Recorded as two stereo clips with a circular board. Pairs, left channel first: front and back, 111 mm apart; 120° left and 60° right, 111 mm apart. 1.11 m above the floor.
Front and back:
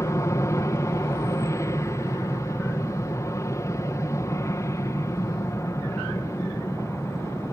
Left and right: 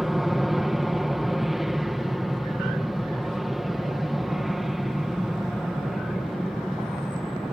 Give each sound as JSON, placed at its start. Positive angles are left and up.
{"t": 0.0, "sound": "an aircraft", "azimuth_deg": 25}